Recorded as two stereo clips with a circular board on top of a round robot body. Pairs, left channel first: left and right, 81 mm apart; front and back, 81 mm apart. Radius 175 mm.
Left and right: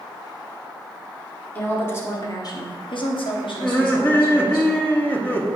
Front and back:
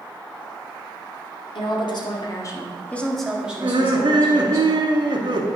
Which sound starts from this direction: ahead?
A woman speaking, at 1.6 s.